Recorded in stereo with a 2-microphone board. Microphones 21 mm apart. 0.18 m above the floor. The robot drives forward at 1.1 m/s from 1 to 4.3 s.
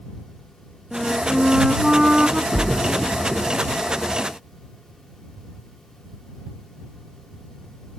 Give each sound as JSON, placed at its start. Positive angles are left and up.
{"t": 0.9, "sound": "a flute", "side_deg": -30}
{"t": 2.5, "sound": "a splash", "side_deg": -10}